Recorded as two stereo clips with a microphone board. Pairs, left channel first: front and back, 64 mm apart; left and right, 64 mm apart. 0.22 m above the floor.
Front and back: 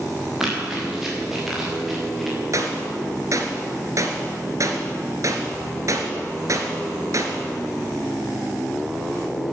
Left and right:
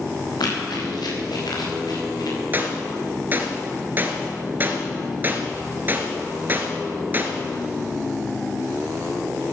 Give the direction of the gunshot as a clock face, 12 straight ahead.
5 o'clock.